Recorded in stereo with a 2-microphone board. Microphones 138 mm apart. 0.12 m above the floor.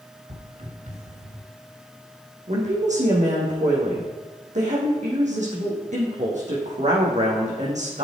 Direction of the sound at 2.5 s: 60° right (ahead or behind).